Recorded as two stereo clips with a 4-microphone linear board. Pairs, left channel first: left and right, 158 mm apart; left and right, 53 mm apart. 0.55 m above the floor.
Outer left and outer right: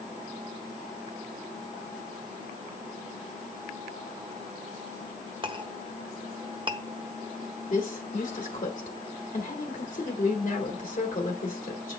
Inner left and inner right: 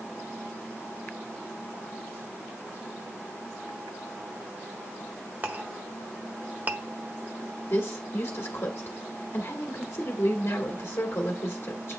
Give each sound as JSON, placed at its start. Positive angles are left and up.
{"t": 5.4, "sound": "a clink", "side_deg": -35, "distance_m": 0.7}
{"t": 7.7, "sound": "a woman speaking", "side_deg": 55, "distance_m": 1.5}